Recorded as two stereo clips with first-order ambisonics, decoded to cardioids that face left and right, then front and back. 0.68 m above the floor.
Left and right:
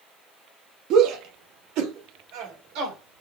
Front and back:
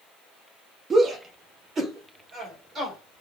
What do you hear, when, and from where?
0.9 s a shout: 115° right, 0.7 m